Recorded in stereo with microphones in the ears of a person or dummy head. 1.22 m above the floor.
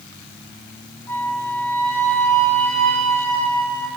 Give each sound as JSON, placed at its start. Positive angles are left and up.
{"t": 1.1, "sound": "a flute", "side_deg": 15, "distance_m": 2.5}